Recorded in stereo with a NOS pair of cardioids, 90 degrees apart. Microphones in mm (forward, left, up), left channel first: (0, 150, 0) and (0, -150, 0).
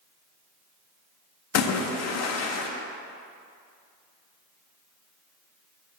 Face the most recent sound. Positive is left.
turn(degrees=55)